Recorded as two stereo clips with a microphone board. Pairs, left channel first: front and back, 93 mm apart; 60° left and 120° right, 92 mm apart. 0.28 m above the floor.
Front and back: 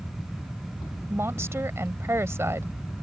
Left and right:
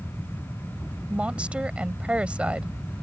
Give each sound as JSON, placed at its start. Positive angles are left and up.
{"t": 1.1, "sound": "a woman speaking", "azimuth_deg": 175}